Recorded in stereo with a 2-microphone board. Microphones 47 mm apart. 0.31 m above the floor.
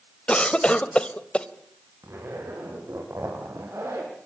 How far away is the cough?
About 1.5 m.